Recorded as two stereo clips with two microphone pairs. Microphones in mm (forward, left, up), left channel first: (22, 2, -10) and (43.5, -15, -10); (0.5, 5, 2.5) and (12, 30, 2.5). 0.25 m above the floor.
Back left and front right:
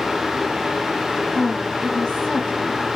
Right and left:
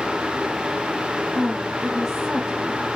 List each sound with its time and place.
1.4 s a woman speaking: 125° left, 1.3 m